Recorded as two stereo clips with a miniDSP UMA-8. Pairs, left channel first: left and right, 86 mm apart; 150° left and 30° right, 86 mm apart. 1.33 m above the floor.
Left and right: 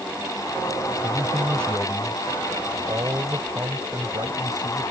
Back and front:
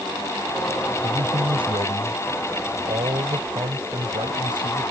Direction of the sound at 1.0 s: 25° right.